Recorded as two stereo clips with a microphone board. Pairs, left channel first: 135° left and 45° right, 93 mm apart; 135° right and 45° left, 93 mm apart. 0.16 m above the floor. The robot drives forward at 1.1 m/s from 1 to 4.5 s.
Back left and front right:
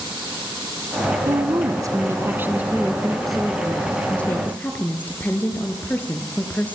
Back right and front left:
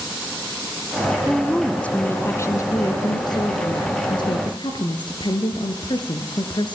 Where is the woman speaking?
45° right, 2 m; by 6.8 s 155° right, 3 m.